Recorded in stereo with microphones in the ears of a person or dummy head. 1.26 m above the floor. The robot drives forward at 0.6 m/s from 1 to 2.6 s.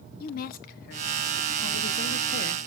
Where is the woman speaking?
50° left (ahead or behind), 1.1 m; by 2.7 s 60° left (ahead or behind), 1.0 m.